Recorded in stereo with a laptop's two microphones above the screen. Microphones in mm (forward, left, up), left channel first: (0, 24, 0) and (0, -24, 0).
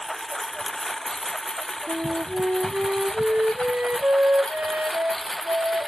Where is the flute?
40° right (ahead or behind).